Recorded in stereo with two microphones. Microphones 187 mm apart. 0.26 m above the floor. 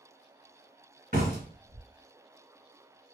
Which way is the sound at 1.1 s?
50° right (ahead or behind).